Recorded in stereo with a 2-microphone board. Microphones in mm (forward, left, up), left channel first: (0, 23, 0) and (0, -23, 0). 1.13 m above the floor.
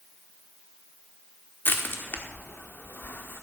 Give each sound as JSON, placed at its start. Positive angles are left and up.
{"t": 1.6, "sound": "crushing", "side_deg": 45, "distance_m": 1.2}